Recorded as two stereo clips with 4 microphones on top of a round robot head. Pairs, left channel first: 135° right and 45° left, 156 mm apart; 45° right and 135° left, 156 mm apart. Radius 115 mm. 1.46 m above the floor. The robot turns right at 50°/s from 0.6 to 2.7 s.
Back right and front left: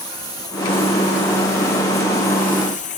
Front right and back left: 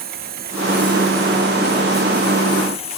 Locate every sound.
0.0 s a lawn mower: 160° left; by 3.0 s 95° right